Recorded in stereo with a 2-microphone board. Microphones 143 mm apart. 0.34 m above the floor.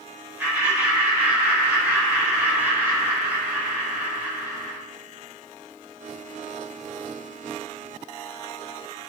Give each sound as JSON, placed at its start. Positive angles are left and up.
{"t": 0.4, "sound": "laughter", "side_deg": -15, "distance_m": 1.0}